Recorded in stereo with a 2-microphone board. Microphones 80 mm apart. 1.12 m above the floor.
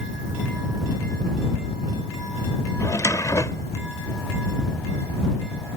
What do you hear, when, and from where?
2.8 s a drawer: 40° left (ahead or behind)